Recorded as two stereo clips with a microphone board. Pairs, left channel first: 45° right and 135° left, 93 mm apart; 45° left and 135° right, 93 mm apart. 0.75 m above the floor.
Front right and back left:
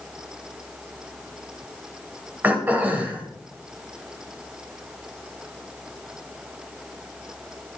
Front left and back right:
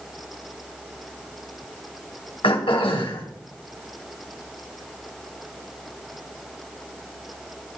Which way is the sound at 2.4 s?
65° left.